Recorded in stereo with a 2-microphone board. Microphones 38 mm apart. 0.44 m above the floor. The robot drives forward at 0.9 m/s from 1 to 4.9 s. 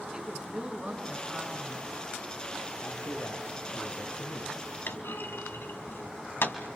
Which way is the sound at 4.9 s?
75° left (ahead or behind).